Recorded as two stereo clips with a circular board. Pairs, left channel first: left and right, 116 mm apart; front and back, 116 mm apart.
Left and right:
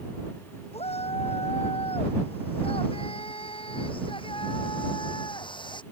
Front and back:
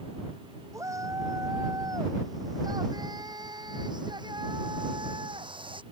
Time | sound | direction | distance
0.7 | a shout | 115° left | ?